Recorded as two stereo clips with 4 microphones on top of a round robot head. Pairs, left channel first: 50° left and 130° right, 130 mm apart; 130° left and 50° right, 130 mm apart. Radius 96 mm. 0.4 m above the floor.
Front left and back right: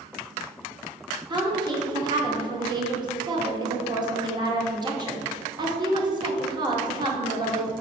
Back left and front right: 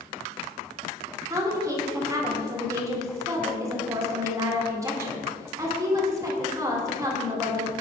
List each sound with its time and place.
1.3 s a woman speaking: 100° right, 1.6 m